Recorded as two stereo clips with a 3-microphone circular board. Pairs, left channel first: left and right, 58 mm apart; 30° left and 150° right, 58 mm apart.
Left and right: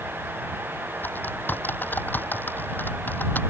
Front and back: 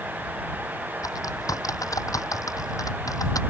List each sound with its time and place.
1.0 s typing on a keyboard: 35° left